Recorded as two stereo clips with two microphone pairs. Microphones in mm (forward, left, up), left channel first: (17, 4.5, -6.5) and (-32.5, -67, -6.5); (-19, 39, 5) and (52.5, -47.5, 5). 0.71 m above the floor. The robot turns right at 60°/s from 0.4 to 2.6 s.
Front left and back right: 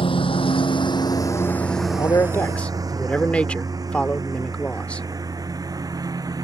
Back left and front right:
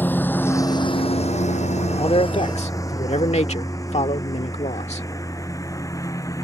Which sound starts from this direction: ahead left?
A lawn mower, at 0.0 s.